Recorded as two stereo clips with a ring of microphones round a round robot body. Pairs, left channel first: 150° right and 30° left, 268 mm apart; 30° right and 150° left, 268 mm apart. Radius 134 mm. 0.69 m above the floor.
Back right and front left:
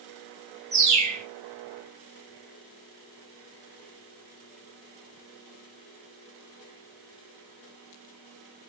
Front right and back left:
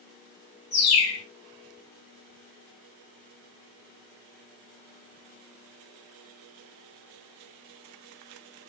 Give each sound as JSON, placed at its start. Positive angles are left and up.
{"t": 0.7, "sound": "a bird", "azimuth_deg": -40, "distance_m": 1.1}